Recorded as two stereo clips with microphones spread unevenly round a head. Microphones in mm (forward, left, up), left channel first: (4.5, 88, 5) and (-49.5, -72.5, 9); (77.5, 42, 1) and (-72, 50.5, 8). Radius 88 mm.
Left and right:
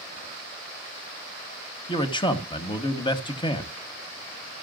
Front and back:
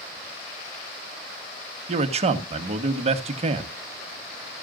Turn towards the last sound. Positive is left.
turn(degrees=130)